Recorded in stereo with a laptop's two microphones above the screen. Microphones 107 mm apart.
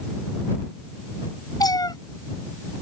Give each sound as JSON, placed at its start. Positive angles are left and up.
{"t": 1.6, "sound": "a cat meowing", "side_deg": 35}